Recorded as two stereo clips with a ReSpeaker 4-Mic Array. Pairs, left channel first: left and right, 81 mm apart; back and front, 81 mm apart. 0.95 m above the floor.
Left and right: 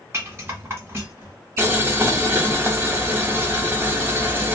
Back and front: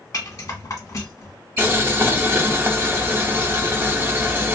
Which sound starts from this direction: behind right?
A rattle, at 0.1 s.